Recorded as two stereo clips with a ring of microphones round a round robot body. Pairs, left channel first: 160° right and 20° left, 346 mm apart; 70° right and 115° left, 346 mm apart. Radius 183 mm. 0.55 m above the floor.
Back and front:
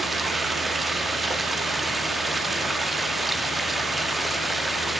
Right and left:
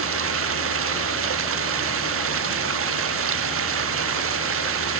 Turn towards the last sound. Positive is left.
turn(degrees=110)